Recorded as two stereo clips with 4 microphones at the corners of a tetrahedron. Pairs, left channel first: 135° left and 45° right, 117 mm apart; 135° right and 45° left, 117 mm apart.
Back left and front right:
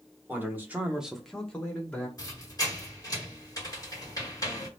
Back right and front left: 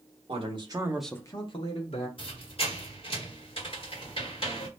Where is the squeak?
170° right, 1.4 m.